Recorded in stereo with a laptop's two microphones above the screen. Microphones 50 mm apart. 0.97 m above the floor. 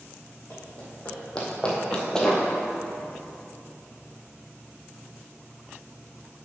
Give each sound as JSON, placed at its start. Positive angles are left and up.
{"t": 0.5, "sound": "running footsteps", "side_deg": 25, "distance_m": 2.5}